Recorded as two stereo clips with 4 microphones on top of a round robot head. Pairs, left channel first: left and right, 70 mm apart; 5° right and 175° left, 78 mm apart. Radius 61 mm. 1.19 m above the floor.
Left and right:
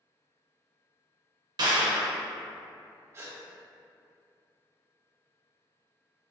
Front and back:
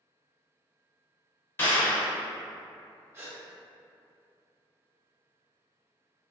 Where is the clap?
70° right, 0.6 m.